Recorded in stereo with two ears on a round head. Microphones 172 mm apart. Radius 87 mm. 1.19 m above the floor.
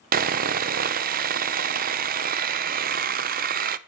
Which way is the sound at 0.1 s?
50° right (ahead or behind).